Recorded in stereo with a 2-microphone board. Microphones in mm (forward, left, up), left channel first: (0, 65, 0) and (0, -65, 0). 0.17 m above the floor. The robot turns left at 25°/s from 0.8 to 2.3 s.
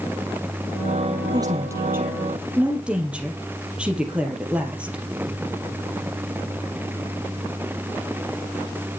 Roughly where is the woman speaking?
Right.